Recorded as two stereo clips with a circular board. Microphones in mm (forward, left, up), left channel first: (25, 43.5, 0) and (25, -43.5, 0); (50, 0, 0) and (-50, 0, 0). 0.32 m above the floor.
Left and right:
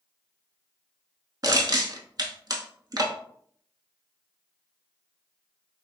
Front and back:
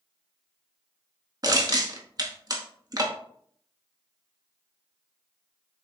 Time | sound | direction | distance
1.4 | crushing | 130° right | 0.6 m